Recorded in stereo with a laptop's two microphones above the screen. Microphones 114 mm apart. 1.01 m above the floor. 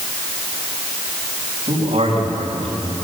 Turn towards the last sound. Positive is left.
turn(degrees=-55)  # may be behind; listen again after turning